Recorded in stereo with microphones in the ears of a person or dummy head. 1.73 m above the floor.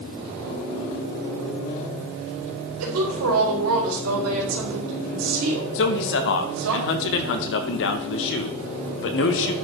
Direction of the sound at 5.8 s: 65° left (ahead or behind).